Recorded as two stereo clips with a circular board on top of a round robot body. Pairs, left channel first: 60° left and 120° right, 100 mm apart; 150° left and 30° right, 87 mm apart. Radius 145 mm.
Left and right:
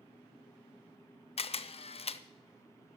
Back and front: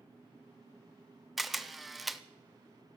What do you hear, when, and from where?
1.4 s a camera shutter: 60° left, 0.8 m